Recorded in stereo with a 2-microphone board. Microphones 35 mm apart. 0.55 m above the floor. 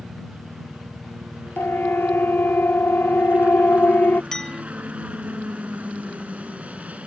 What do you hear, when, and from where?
0.0 s a helicopter: 45° right (ahead or behind)
1.6 s a siren: 85° left; by 4.2 s 70° left (ahead or behind)
4.3 s a clink: 20° left (ahead or behind)